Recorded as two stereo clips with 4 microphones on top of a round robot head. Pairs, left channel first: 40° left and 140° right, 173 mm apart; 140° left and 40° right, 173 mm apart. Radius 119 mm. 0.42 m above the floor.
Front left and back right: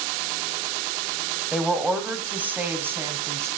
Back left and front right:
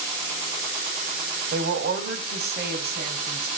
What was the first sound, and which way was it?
A woman speaking, 55° right.